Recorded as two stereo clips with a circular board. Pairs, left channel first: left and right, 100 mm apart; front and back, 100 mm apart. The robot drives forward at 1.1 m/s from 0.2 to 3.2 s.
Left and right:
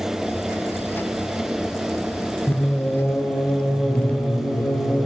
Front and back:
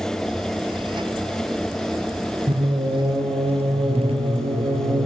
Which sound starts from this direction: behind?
Singing, at 2.5 s.